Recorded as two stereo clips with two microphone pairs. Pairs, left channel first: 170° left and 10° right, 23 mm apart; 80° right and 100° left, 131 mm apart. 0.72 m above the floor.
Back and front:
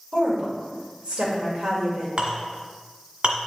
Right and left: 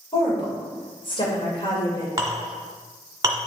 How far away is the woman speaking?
About 2.5 m.